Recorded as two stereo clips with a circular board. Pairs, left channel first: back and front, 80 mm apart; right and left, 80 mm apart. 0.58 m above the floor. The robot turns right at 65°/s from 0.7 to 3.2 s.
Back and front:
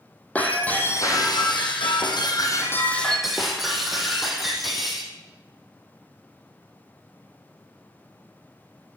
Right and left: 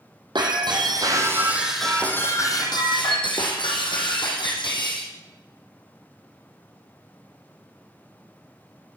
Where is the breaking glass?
110° left, 3 m; by 5.1 s 90° right, 3 m.